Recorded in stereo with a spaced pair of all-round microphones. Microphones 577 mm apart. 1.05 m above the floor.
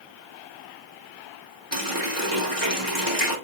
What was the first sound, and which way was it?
A running tap, 30° right (ahead or behind).